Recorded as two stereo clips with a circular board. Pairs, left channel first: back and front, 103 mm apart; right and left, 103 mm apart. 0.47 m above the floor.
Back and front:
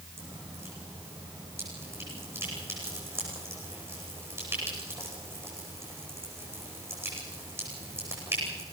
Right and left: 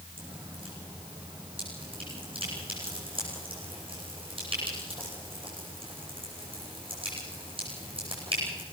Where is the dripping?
65° left, 10 m.